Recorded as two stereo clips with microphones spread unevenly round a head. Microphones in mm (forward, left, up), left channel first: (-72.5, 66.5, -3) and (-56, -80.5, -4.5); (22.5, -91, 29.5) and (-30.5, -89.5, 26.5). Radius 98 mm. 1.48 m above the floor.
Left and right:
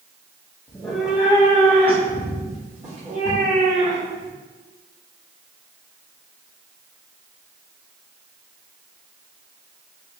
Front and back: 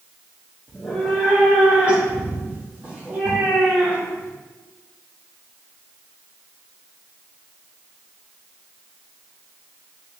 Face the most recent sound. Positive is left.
turn(degrees=-120)